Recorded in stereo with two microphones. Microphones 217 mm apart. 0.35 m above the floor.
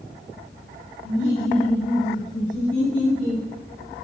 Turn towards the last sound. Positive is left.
turn(degrees=60)  # may be behind; listen again after turning